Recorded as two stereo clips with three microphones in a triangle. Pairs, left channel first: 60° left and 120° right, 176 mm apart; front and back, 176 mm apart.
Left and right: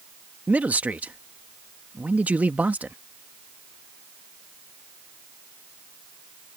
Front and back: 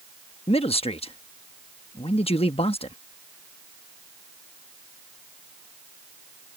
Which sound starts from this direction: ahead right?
A man speaking, at 0.5 s.